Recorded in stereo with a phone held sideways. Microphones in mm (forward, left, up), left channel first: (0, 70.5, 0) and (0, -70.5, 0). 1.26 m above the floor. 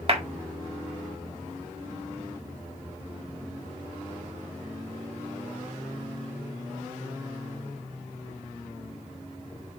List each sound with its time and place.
0.1 s a clap: 45° right (ahead or behind), 1.7 m